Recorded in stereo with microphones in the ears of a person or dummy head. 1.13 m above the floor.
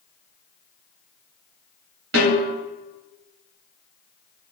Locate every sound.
2.1 s a snare drum: 75° right (ahead or behind), 2.5 m